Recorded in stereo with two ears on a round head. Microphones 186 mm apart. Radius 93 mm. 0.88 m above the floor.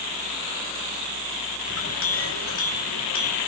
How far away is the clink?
About 3 m.